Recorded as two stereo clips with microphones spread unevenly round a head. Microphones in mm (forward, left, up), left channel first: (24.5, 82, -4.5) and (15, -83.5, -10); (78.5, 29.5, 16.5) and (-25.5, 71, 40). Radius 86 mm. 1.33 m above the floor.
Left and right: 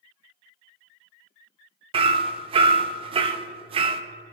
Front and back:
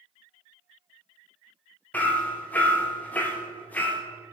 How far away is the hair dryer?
No hair dryer in this recording.